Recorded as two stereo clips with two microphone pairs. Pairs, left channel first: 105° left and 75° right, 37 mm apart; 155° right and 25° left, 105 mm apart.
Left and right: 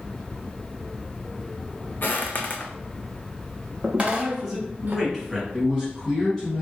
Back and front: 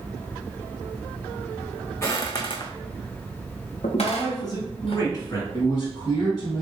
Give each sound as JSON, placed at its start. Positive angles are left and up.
{"t": 2.0, "sound": "footsteps", "azimuth_deg": 140, "distance_m": 0.8}
{"t": 4.0, "sound": "a man speaking", "azimuth_deg": -155, "distance_m": 1.9}
{"t": 5.5, "sound": "a man speaking", "azimuth_deg": -175, "distance_m": 1.2}